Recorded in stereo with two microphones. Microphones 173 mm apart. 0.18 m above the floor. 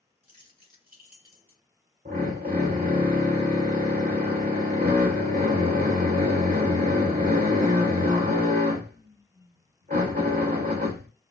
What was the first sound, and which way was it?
Keys jangling, 55° right (ahead or behind).